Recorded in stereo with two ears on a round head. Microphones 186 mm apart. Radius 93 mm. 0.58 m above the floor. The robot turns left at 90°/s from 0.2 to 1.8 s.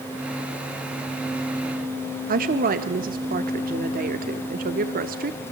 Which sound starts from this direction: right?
A woman speaking, at 2.3 s.